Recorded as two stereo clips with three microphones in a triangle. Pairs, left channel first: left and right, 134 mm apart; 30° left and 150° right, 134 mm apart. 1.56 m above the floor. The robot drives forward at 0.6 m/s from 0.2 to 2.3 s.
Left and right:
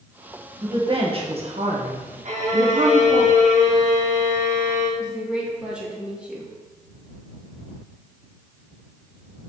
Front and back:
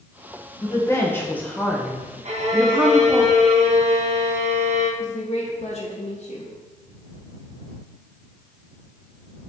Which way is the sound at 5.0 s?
10° right.